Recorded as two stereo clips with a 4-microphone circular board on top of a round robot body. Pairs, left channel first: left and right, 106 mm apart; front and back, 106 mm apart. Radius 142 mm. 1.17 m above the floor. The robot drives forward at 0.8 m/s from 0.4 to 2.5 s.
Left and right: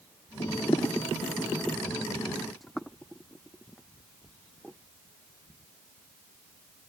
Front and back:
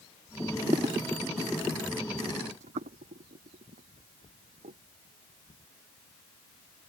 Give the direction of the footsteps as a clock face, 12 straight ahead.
9 o'clock.